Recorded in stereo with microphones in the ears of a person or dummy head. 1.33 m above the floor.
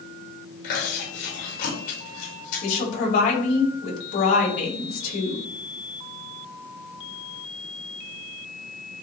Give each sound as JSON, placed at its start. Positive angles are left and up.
{"t": 0.6, "sound": "chewing", "side_deg": 55, "distance_m": 6.0}
{"t": 2.6, "sound": "a woman speaking", "side_deg": 55, "distance_m": 5.0}